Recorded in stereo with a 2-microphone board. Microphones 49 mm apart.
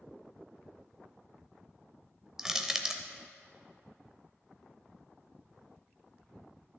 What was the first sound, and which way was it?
Crushing, 10° right (ahead or behind).